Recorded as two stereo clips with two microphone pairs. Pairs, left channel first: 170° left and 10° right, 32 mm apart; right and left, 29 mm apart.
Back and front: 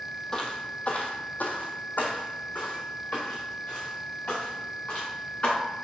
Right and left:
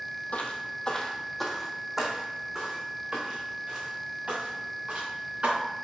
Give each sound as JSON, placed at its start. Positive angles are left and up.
{"t": 0.3, "sound": "footsteps", "azimuth_deg": -125, "distance_m": 1.5}